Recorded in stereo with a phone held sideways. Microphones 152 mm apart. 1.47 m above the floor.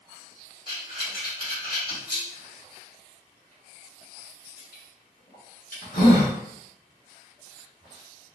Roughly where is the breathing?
Left.